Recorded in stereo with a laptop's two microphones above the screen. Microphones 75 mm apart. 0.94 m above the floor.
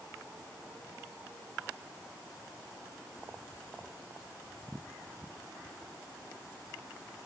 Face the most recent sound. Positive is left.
No sound to turn to.